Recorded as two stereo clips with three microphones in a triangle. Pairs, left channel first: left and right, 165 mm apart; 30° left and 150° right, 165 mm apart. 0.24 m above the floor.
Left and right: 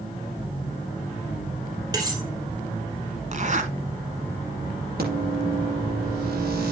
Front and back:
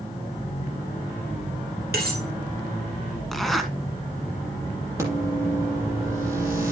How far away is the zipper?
About 2.0 m.